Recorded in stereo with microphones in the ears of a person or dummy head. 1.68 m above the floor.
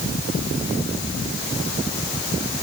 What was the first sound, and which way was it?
Only background noise.